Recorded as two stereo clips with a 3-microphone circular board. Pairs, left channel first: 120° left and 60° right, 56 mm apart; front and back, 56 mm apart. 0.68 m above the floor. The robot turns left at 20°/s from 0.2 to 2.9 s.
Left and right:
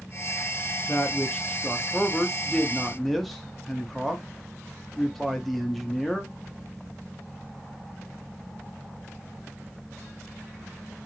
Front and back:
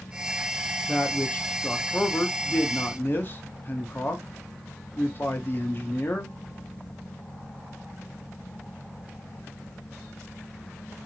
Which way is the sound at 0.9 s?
70° left.